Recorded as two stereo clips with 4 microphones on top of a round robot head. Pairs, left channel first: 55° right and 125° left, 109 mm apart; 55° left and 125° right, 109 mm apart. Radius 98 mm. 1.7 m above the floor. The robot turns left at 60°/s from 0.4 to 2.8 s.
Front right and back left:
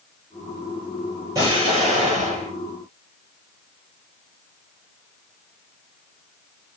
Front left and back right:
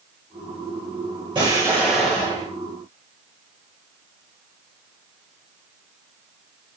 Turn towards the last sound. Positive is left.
turn(degrees=95)